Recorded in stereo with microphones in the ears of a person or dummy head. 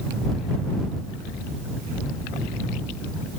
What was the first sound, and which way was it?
Only background noise.